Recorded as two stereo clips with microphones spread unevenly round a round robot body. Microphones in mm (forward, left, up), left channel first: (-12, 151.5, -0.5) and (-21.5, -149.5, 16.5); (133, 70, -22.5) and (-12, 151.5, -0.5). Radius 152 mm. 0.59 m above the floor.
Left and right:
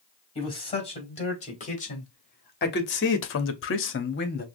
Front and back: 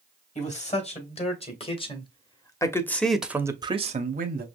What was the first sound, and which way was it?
A man speaking, 15° left.